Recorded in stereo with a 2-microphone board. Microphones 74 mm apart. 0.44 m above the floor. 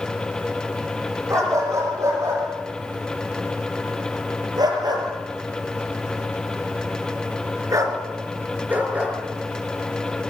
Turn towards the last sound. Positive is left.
turn(degrees=-15)  # may be behind; listen again after turning